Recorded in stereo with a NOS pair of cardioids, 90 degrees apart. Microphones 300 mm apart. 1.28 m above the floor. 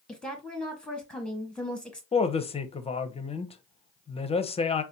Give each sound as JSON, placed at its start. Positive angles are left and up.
{"t": 0.1, "sound": "a woman speaking", "azimuth_deg": 5, "distance_m": 1.4}
{"t": 2.1, "sound": "a woman speaking", "azimuth_deg": 20, "distance_m": 0.6}